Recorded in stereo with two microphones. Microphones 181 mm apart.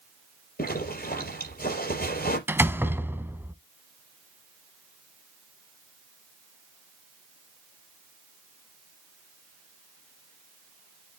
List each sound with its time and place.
0.6 s a zipper: 60° left (ahead or behind), 4 m
2.5 s a door slam: 10° right (ahead or behind), 0.7 m